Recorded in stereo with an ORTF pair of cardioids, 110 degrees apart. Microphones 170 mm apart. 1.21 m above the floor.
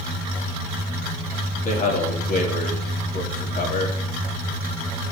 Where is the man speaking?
50° left, 2.5 m.